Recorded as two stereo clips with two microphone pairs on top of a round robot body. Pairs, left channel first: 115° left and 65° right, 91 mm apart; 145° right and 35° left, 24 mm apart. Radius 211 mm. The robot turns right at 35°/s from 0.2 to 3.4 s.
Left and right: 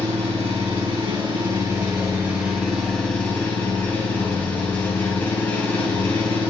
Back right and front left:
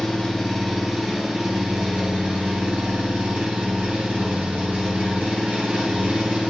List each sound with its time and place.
0.0 s an engine running: 65° right, 6.5 m; by 6.5 s 45° left, 6.5 m